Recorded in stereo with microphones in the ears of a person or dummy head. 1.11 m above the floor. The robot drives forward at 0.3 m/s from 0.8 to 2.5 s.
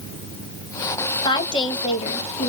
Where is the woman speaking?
20° left (ahead or behind), 1.2 m; by 2.5 s 30° left (ahead or behind), 0.9 m.